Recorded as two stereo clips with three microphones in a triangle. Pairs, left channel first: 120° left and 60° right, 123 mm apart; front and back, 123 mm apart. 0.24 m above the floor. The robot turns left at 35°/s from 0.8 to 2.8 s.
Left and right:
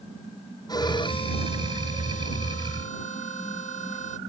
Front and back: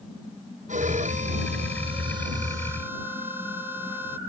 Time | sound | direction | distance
0.7 | a violin | 175° left | ?